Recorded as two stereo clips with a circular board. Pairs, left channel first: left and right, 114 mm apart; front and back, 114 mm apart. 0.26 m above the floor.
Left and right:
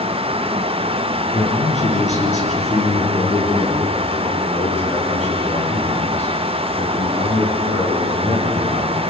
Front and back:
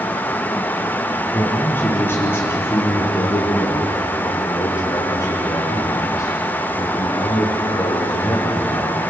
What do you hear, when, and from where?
1.3 s a man speaking: 75° left, 5 m; by 9.0 s 60° left, 12 m